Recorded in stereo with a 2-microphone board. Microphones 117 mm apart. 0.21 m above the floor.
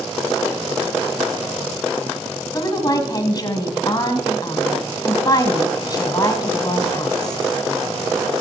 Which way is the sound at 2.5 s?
35° left (ahead or behind).